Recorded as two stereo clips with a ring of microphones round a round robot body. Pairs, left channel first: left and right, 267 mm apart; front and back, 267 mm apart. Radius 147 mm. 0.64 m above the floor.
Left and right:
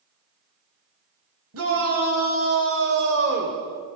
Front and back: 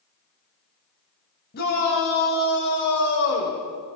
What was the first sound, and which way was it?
A shout, 60° right.